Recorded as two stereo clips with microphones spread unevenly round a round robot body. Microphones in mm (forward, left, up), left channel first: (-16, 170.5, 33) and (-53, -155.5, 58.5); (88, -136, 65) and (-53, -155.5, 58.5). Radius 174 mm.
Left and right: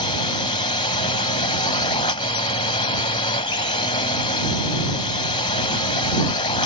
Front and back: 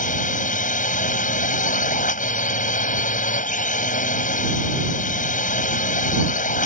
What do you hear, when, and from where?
0.0 s a drone: 10° left